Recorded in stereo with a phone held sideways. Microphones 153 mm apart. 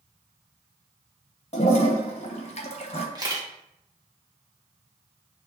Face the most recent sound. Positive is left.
turn(degrees=-25)  # may be behind; listen again after turning